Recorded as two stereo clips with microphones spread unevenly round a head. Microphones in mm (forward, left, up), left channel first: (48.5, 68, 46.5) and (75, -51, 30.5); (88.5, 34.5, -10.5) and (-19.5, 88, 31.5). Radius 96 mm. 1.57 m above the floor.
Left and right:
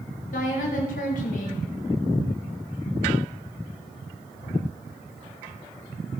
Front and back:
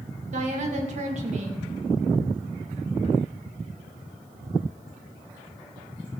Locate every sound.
0.3 s a woman speaking: 135° left, 3 m